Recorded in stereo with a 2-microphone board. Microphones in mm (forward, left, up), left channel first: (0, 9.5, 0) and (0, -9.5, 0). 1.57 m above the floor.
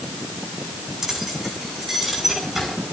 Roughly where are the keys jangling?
Right.